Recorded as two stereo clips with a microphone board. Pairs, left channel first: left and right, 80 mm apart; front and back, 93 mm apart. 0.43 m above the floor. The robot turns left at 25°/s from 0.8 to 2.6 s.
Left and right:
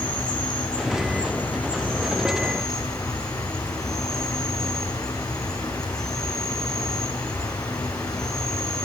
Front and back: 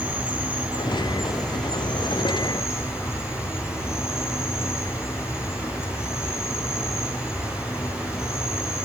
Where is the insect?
105° left, 4.5 m; by 8.8 s 60° left, 4.5 m.